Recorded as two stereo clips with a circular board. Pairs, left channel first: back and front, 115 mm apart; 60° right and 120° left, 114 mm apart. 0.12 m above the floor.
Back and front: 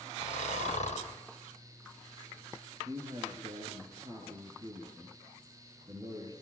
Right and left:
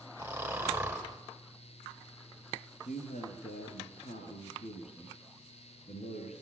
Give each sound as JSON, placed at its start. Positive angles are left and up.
{"t": 0.2, "sound": "snoring", "azimuth_deg": -165, "distance_m": 5.5}
{"t": 2.8, "sound": "a man speaking", "azimuth_deg": -60, "distance_m": 10.0}